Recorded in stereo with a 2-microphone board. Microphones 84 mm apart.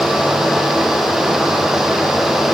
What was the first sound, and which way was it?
Only background noise.